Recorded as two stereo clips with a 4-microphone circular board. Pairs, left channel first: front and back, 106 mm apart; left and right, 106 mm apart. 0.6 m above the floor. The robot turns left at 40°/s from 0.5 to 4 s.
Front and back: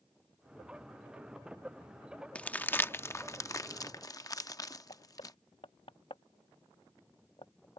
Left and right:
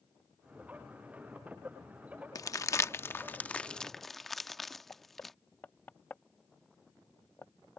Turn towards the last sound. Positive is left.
turn(degrees=20)